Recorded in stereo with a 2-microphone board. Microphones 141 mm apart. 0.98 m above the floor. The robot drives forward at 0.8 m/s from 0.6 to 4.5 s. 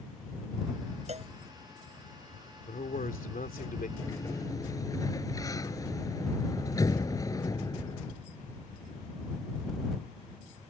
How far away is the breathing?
No breathing in this recording.